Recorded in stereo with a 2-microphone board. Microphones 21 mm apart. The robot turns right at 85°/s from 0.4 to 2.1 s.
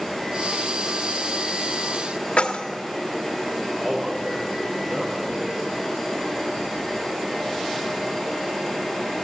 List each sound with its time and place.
2.4 s keys jangling: 70° left (ahead or behind), 1.1 m
3.8 s a man speaking: 60° right (ahead or behind), 8.5 m